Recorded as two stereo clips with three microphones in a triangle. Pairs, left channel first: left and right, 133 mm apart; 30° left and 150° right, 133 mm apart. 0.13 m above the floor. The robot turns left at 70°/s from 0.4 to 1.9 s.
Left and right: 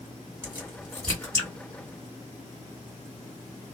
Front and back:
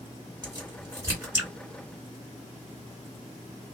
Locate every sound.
0.4 s a crack: 145° right, 1.9 m; by 1.5 s 140° left, 1.9 m